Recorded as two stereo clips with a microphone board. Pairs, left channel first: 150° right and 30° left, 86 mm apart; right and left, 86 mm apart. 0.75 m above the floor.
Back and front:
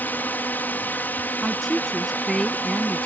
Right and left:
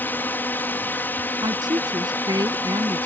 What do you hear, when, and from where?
0.0 s a drone: 115° right
1.4 s a woman speaking: 125° left